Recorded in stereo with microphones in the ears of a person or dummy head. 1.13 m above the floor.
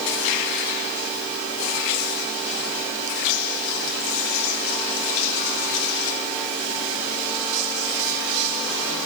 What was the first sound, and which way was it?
Only background noise.